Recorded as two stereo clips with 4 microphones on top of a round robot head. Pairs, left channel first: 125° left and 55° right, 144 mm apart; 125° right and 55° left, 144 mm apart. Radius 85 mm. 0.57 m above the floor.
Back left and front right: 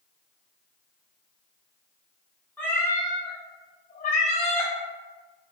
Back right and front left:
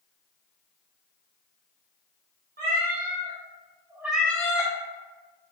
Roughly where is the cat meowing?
Ahead left.